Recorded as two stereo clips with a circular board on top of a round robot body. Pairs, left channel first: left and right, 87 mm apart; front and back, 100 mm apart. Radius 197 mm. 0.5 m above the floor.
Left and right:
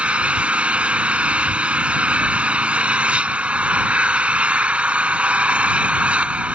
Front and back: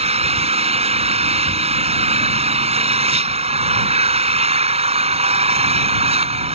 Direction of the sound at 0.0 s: 165° right.